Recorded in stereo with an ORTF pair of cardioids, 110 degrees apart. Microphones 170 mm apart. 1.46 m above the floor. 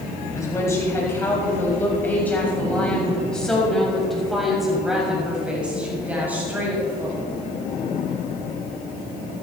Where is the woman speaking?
20° left, 7.5 m; by 7.2 s 15° right, 7.5 m.